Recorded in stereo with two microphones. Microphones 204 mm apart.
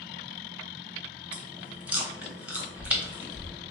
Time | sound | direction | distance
1.3 | chewing | 5° right (ahead or behind) | 0.8 m